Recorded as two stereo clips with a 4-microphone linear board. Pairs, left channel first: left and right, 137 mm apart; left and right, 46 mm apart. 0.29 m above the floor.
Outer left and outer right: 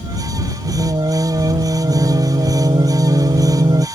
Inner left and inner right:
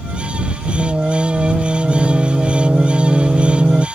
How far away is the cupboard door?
No cupboard door in this recording.